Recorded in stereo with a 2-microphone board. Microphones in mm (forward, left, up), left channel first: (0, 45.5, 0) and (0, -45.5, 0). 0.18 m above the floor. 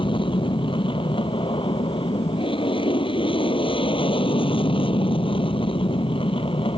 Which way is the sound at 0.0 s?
65° left (ahead or behind).